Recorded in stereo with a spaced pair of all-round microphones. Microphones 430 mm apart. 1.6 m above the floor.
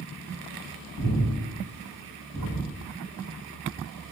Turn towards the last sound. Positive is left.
turn(degrees=30)  # may be behind; listen again after turning